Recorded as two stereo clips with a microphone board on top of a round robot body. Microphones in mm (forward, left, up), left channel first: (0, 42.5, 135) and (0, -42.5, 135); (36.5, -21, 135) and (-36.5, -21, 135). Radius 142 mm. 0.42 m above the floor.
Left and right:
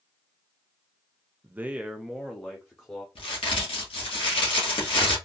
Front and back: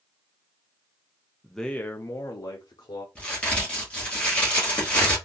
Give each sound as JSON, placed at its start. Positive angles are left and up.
{"t": 1.4, "sound": "a man speaking", "azimuth_deg": -95, "distance_m": 0.7}
{"t": 3.1, "sound": "a crack", "azimuth_deg": 75, "distance_m": 2.0}